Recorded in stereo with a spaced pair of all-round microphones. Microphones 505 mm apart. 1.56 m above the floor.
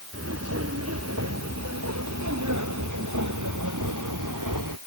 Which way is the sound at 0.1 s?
30° right (ahead or behind).